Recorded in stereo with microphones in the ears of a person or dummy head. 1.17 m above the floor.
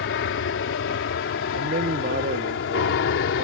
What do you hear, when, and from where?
0.0 s an aircraft: 65° left (ahead or behind)
1.5 s a man speaking: 45° right (ahead or behind)